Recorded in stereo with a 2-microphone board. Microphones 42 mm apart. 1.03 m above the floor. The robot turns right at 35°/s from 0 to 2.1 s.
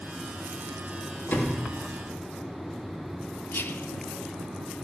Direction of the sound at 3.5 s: 65° left (ahead or behind).